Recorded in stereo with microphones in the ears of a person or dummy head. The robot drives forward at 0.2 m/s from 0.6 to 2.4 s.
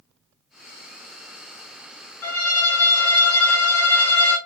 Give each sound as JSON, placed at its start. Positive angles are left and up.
{"t": 2.2, "sound": "a violin", "side_deg": 10, "distance_m": 0.8}